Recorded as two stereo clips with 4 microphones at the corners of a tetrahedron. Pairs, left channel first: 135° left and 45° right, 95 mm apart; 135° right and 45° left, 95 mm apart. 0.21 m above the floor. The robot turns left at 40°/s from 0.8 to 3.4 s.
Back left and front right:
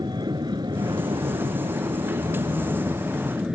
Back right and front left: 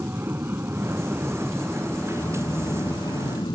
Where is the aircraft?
15° right; by 3.6 s 120° right.